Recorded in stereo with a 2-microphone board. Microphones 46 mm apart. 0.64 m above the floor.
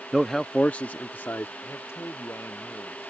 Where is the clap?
No clap in this recording.